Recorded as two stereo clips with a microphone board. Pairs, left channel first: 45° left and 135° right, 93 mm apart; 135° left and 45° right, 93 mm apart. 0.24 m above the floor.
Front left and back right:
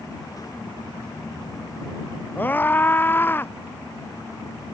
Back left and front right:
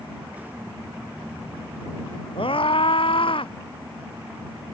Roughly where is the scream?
Behind left.